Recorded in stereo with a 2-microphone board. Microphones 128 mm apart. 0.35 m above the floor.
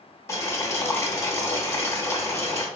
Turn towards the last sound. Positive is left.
turn(degrees=20)  # may be behind; listen again after turning